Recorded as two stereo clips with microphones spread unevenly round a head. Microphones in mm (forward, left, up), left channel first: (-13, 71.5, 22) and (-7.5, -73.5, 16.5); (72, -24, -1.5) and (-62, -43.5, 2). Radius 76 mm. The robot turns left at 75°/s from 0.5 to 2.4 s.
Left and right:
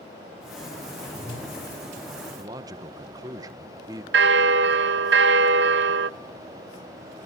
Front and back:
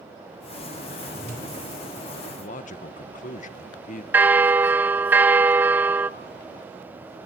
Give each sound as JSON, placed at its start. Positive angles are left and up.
{"t": 1.0, "sound": "a whoosh", "azimuth_deg": 70, "distance_m": 9.0}
{"t": 2.4, "sound": "a man speaking", "azimuth_deg": -20, "distance_m": 1.4}
{"t": 4.1, "sound": "a bell", "azimuth_deg": -95, "distance_m": 0.9}